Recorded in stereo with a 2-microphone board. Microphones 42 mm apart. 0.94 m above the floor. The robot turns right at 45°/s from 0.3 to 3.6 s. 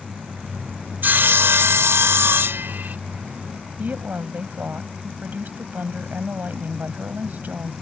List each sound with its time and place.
1.0 s sawing: 130° right; by 3.0 s 45° right
3.8 s a woman speaking: 45° right (ahead or behind)